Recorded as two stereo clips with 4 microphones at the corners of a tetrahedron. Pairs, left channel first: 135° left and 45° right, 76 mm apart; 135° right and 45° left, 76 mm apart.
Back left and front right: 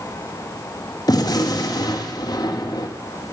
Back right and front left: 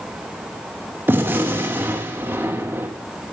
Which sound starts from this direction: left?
A gunshot, at 1.1 s.